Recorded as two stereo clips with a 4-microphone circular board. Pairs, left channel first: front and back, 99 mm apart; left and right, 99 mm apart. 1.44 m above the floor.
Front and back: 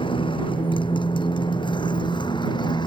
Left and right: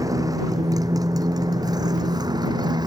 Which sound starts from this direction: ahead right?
A motorcycle, at 0.0 s.